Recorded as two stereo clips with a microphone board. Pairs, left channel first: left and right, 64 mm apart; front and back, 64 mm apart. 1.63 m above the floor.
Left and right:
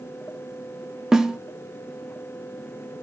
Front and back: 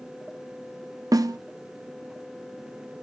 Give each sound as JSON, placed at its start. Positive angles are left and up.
{"t": 1.1, "sound": "a snare drum", "azimuth_deg": -170, "distance_m": 0.9}